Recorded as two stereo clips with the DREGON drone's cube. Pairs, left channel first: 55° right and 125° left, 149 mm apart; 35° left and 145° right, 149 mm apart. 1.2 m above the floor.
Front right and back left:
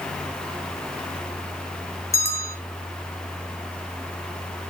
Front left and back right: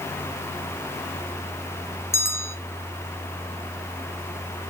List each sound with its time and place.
2.1 s a bell: 15° right, 0.8 m